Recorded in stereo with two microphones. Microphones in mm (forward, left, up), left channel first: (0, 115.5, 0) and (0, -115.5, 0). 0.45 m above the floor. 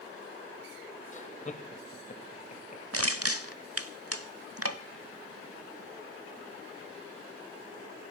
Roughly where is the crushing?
Right.